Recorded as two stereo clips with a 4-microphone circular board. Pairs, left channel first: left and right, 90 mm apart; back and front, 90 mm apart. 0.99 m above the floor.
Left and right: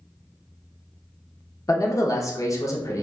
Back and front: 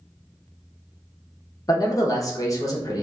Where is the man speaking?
135° left, 0.7 m.